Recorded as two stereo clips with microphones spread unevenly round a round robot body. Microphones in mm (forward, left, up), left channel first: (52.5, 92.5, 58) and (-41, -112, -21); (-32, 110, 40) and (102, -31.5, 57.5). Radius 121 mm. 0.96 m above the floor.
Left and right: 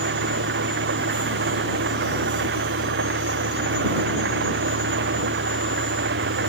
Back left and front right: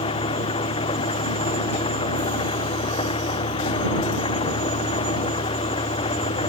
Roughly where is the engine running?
Behind.